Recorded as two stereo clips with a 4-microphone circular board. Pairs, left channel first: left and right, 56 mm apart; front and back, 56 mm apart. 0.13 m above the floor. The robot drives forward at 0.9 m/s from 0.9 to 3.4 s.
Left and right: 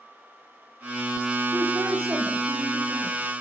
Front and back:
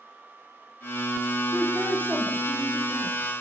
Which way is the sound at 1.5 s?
120° right.